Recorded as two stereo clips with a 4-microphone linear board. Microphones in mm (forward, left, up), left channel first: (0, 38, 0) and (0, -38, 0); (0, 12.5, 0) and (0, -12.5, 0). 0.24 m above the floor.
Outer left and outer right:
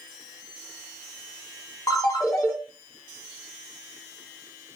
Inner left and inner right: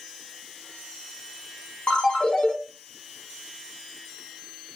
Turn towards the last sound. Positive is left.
turn(degrees=50)  # may be behind; listen again after turning